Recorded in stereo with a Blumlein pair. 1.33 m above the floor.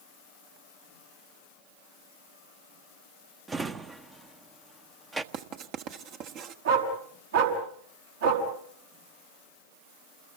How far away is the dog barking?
About 5 m.